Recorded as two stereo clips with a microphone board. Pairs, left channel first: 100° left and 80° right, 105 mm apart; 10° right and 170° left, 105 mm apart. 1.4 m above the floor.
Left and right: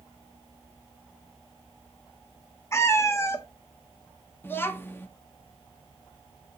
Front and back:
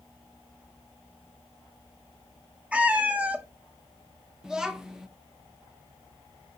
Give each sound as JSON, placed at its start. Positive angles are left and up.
{"t": 2.7, "sound": "a cat meowing", "azimuth_deg": 110, "distance_m": 0.6}
{"t": 4.4, "sound": "a child speaking", "azimuth_deg": 95, "distance_m": 0.5}